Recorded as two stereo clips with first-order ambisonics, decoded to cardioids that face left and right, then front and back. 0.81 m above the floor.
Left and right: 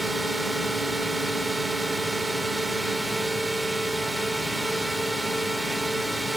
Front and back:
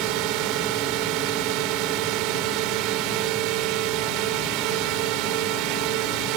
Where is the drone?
175° right.